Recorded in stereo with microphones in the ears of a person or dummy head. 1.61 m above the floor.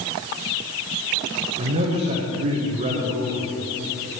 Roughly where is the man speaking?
Right.